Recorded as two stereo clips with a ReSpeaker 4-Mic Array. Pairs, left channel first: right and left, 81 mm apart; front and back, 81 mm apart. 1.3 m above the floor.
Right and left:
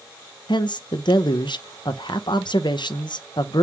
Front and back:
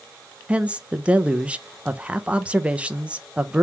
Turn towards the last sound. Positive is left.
turn(degrees=-105)